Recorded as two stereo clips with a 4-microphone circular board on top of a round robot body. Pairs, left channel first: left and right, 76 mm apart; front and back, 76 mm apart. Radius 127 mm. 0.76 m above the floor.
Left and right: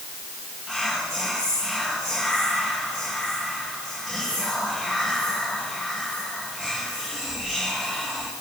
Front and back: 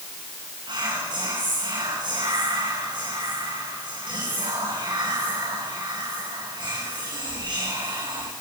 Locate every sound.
0.7 s whispering: 175° left, 6.5 m